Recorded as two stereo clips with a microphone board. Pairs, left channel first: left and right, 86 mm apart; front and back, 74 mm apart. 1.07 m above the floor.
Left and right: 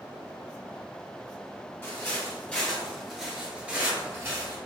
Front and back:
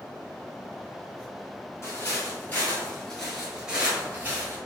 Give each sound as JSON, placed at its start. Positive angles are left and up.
{"t": 1.8, "sound": "footsteps", "azimuth_deg": 40, "distance_m": 1.4}